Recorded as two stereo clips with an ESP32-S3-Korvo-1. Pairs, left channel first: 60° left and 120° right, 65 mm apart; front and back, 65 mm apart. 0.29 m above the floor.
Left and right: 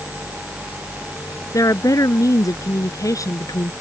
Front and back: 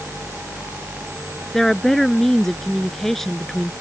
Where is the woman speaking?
85° left.